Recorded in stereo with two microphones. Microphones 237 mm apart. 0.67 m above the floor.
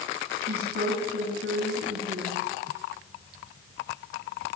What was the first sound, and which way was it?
A woman speaking, 80° right.